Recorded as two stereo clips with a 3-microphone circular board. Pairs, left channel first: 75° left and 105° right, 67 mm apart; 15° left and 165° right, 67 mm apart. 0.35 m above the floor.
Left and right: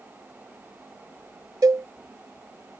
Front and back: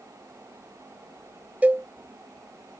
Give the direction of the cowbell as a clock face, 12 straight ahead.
3 o'clock.